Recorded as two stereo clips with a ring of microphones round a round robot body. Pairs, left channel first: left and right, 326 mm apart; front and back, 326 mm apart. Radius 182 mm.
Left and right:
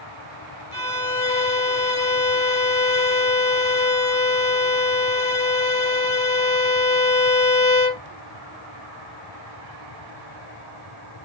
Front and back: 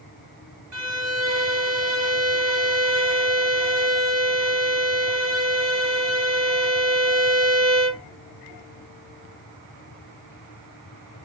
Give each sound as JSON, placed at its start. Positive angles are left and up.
{"t": 0.7, "sound": "a violin", "azimuth_deg": 160, "distance_m": 2.0}